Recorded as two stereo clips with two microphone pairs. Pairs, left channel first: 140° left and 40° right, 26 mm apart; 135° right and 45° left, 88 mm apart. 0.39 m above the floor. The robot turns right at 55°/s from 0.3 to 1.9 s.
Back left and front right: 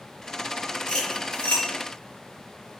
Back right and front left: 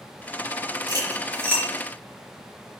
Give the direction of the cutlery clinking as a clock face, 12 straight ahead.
9 o'clock.